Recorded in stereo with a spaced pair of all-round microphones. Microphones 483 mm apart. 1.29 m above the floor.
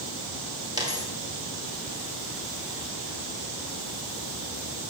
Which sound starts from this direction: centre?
A dropped coin, at 0.8 s.